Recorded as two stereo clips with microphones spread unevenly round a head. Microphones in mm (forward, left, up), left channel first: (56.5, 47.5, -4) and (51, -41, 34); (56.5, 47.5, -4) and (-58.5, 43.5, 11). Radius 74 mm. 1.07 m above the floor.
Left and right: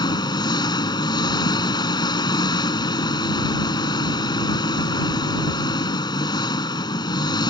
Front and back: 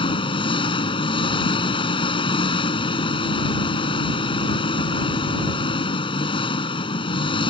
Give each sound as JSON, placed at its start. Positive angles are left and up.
{"t": 0.0, "sound": "an engine running", "azimuth_deg": 45}